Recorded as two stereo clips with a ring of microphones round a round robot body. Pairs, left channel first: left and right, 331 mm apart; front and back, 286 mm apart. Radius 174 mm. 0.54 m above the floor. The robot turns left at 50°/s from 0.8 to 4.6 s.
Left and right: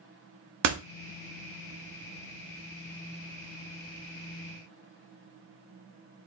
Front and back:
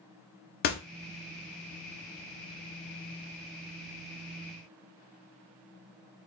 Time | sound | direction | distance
0.6 | a door slam | 55° right | 0.9 m